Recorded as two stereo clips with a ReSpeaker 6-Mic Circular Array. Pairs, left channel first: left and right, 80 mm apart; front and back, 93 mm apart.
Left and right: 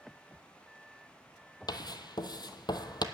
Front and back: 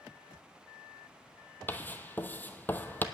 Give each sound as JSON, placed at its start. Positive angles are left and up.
{"t": 1.7, "sound": "writing", "azimuth_deg": 70, "distance_m": 0.8}